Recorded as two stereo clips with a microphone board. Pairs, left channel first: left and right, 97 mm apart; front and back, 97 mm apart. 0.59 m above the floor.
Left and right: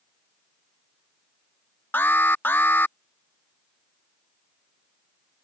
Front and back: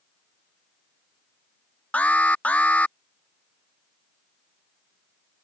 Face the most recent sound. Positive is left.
turn(degrees=55)